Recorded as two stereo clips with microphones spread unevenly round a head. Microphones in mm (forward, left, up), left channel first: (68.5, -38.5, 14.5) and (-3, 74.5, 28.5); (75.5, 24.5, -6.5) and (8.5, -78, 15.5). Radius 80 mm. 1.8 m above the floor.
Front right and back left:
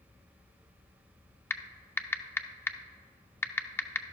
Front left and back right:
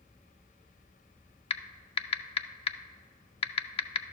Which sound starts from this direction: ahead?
Typing on a keyboard, at 1.5 s.